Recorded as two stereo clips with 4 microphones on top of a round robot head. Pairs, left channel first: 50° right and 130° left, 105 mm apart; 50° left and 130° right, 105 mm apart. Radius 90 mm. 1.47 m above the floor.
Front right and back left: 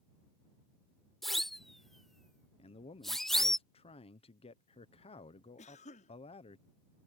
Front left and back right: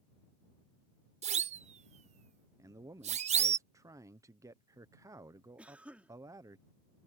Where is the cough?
50° right.